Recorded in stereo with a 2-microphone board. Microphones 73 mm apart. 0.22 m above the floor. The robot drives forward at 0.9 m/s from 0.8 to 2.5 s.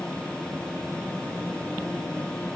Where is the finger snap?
I don't hear a finger snap.